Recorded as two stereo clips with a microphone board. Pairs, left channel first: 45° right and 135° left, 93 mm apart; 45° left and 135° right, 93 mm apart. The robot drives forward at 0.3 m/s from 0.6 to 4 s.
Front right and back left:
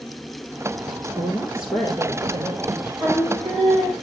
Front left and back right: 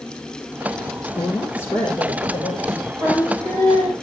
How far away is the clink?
No clink in this recording.